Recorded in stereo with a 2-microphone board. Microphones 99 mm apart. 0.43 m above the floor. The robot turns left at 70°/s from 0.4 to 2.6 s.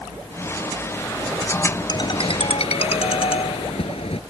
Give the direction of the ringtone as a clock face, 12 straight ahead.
7 o'clock.